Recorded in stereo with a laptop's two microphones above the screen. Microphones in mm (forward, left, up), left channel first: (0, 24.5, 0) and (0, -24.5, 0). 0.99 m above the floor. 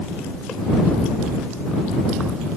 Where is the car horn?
No car horn in this recording.